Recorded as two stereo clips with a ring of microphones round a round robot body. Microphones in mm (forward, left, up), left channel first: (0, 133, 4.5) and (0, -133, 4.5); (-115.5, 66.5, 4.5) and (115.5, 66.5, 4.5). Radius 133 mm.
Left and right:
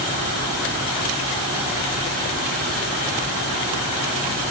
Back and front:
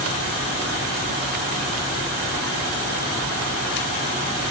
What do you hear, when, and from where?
Only background noise.